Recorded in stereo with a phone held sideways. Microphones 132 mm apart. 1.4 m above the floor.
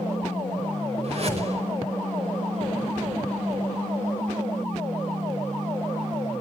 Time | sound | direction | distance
1.0 | a whoosh | 50° right (ahead or behind) | 5.5 m